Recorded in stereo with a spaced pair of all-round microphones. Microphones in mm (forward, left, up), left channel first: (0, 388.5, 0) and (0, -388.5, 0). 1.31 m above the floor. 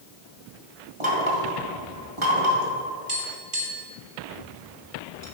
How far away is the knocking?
About 1.9 m.